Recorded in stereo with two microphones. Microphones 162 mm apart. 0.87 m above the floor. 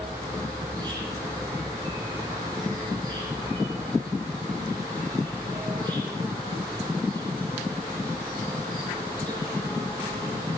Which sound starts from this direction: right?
An insect, at 0.0 s.